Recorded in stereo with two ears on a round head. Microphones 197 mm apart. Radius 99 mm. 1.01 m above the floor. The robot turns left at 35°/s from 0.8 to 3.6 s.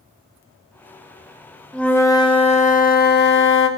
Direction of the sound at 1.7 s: 175° left.